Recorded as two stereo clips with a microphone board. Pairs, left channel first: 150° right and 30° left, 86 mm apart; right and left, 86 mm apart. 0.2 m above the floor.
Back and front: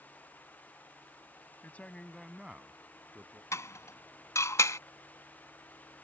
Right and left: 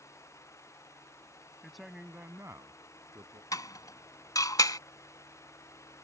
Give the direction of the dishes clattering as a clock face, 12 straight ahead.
4 o'clock.